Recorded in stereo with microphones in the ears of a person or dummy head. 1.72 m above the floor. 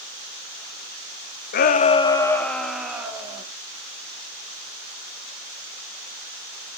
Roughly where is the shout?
Left.